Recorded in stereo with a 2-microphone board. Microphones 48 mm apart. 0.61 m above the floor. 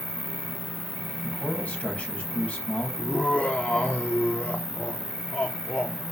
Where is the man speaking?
30° left (ahead or behind), 5 m.